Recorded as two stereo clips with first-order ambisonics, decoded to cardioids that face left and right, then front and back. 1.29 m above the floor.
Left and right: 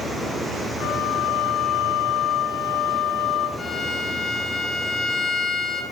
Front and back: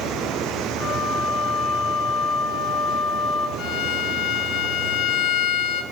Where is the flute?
50° left, 4.5 m.